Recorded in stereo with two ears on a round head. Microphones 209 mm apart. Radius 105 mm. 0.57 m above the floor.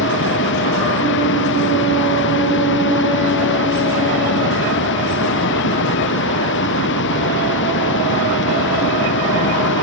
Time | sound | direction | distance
0.0 | running water | 50° left (ahead or behind) | ?